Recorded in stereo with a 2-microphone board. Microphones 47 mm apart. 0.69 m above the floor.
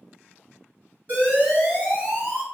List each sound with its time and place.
1.1 s an alarm: 35° right (ahead or behind), 1.7 m